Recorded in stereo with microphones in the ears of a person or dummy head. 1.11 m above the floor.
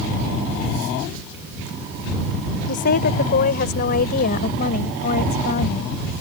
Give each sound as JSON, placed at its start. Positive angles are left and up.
{"t": 2.7, "sound": "a woman speaking", "side_deg": 55}